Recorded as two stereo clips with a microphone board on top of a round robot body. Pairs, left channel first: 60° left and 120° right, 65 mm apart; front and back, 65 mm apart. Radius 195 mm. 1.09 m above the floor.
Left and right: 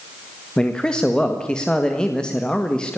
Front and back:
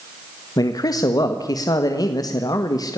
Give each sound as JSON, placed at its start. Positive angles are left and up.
{"t": 0.6, "sound": "a man speaking", "azimuth_deg": -20, "distance_m": 1.8}